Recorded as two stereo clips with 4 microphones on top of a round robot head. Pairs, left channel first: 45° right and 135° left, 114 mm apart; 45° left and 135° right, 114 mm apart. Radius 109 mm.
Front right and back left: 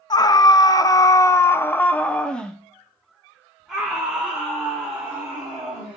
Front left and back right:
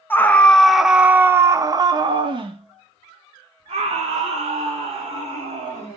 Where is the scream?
15° right, 1.0 m; by 6.0 s 150° right, 2.5 m.